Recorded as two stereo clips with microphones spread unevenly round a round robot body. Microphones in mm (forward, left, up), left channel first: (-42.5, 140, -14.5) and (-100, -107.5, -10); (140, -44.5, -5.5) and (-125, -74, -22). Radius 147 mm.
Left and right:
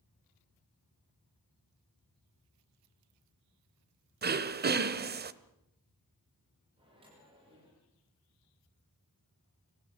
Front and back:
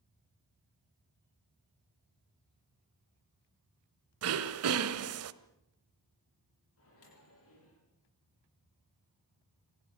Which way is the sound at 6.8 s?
30° right.